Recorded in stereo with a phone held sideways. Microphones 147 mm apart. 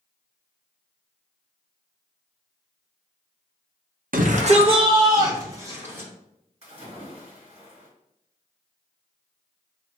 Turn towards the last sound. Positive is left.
turn(degrees=-45)  # may be behind; listen again after turning